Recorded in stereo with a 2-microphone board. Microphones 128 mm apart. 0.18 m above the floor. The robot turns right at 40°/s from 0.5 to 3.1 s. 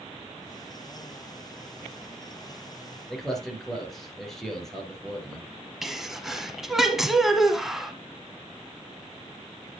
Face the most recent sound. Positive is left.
turn(degrees=-5)  # may be behind; listen again after turning